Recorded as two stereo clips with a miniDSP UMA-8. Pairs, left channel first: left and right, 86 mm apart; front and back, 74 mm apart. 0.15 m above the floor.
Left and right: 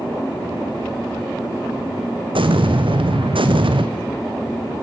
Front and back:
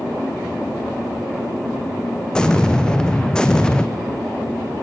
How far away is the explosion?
About 1.8 m.